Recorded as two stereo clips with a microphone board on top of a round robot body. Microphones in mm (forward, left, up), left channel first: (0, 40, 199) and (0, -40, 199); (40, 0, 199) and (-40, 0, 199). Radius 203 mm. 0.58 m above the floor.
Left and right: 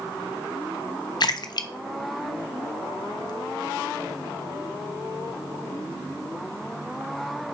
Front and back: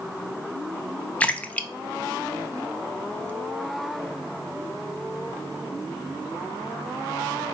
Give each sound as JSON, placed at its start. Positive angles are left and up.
{"t": 1.2, "sound": "a splash", "azimuth_deg": 70, "distance_m": 0.6}